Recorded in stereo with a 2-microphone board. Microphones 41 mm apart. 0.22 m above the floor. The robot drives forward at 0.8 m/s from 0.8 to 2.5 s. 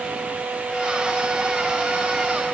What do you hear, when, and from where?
Only background noise.